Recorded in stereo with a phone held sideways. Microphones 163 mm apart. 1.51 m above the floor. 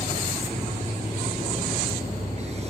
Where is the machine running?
40° right (ahead or behind).